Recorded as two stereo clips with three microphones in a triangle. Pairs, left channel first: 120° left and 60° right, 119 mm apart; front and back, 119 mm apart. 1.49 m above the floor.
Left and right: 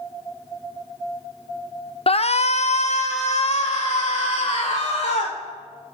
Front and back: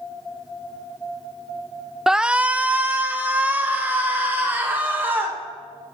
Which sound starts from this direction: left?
A shout, at 2.1 s.